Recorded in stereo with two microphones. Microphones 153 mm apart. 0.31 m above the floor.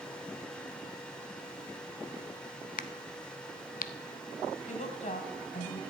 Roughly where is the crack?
Left.